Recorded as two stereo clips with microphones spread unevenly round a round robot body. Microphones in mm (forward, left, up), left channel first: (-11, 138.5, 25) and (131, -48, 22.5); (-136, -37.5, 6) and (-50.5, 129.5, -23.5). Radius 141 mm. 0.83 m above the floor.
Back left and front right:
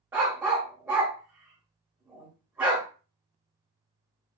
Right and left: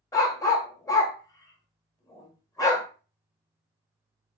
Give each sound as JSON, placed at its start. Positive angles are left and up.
{"t": 0.1, "sound": "a dog barking", "azimuth_deg": -130, "distance_m": 0.6}